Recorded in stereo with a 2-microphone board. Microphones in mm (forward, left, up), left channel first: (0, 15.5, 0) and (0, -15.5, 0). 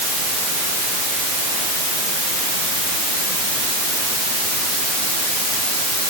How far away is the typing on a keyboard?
No typing on a keyboard in this recording.